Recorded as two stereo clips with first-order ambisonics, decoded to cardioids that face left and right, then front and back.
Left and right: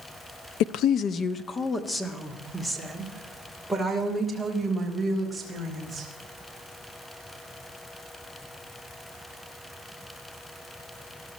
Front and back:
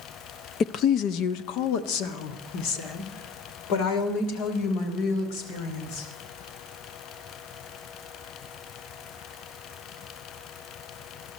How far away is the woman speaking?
About 0.6 m.